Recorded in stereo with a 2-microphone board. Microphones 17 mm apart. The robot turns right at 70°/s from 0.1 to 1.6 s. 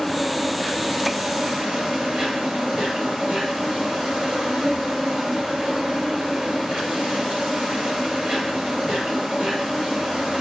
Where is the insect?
145° left, 6.5 m; by 10.4 s 110° right, 6.5 m.